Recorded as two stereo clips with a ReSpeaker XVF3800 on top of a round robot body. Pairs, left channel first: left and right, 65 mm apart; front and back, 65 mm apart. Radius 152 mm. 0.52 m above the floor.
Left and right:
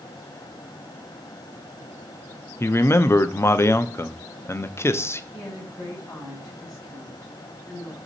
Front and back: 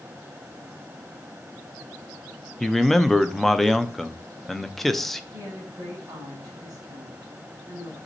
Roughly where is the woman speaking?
Behind left.